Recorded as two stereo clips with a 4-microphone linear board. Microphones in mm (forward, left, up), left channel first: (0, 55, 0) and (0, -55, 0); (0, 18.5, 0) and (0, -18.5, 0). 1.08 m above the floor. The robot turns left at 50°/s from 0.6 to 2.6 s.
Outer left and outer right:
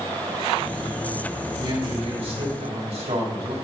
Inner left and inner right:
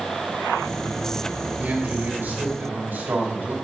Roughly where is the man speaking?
Ahead right.